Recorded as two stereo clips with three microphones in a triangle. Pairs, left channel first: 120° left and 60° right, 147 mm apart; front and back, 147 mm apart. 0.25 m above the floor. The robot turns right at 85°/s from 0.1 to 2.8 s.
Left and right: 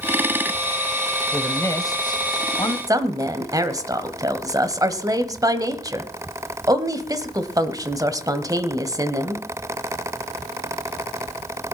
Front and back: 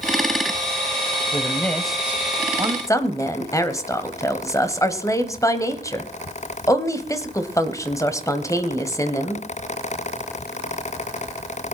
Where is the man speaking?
40° left, 1.0 m; by 2.8 s 165° left, 1.0 m.